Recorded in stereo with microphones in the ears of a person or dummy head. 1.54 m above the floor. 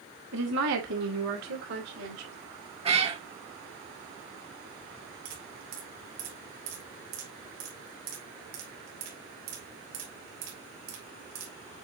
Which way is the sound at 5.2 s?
70° right (ahead or behind).